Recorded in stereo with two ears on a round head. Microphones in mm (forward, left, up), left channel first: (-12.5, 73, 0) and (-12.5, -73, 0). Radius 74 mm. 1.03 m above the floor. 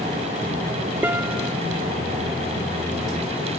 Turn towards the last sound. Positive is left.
turn(degrees=-15)  # may be behind; listen again after turning